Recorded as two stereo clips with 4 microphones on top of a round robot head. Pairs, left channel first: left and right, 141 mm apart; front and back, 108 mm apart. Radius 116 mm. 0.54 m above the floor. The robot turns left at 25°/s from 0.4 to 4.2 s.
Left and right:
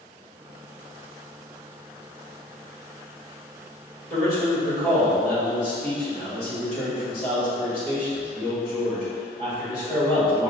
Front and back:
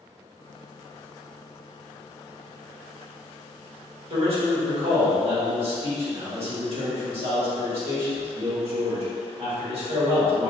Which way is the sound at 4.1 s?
160° left.